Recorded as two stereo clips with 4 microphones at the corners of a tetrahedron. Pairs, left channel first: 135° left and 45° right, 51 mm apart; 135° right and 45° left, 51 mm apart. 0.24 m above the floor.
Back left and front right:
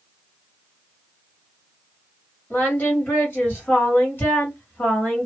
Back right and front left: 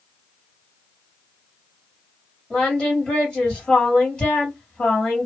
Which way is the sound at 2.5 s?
155° left.